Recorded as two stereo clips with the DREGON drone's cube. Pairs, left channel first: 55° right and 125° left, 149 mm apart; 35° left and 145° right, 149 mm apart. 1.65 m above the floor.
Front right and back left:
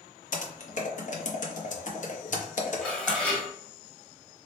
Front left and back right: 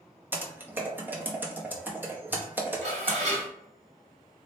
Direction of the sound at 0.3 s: 70° right.